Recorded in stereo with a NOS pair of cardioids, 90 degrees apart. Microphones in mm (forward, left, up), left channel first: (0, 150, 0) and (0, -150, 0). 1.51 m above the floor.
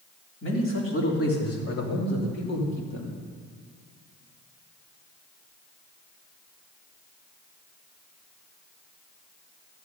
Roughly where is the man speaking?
Ahead left.